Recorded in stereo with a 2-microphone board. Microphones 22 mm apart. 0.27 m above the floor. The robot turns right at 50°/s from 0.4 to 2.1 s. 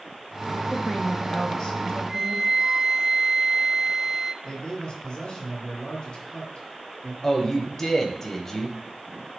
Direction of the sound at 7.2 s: 20° left (ahead or behind).